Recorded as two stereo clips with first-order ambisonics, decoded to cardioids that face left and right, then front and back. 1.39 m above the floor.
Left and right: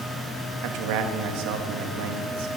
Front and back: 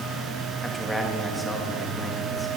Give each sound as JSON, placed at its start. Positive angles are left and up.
{"t": 0.6, "sound": "a man speaking", "azimuth_deg": -90, "distance_m": 2.5}